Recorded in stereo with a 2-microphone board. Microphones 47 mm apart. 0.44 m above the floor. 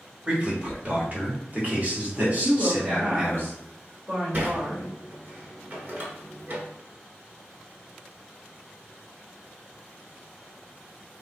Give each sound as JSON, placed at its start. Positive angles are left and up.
{"t": 0.3, "sound": "a man speaking", "side_deg": -25, "distance_m": 1.4}
{"t": 2.4, "sound": "a woman speaking", "side_deg": -50, "distance_m": 1.4}
{"t": 4.3, "sound": "a sliding door", "side_deg": -45, "distance_m": 1.0}